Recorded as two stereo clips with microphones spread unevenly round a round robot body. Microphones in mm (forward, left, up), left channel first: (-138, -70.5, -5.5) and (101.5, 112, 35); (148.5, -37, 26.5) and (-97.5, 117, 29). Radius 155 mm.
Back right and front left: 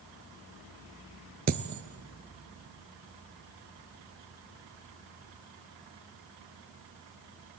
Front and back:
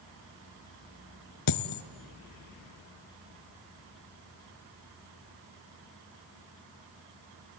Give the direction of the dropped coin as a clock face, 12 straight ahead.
1 o'clock.